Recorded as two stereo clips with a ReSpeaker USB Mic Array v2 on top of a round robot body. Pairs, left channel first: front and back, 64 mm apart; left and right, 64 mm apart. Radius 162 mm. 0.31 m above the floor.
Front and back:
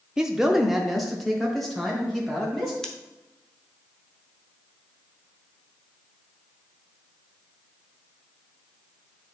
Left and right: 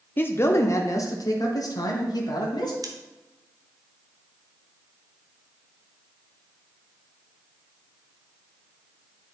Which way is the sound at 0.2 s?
110° left.